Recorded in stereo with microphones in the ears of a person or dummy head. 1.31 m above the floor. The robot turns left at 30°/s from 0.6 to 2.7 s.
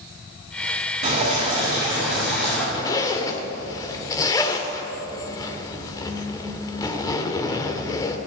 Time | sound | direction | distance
1.0 | dripping | 140° right | 6.5 m
2.7 | a zipper | 20° left (ahead or behind) | 1.3 m